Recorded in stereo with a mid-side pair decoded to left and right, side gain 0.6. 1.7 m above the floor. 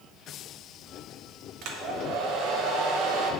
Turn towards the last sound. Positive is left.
turn(degrees=-70)